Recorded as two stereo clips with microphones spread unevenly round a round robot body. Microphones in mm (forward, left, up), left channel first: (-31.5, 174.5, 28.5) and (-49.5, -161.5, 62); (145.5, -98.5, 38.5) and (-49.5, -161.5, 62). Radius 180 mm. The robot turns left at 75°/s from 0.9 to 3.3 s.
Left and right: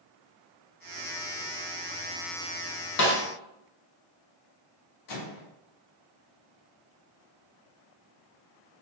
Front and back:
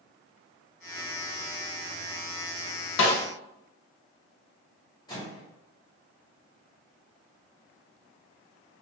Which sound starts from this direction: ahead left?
A snare drum, at 3.0 s.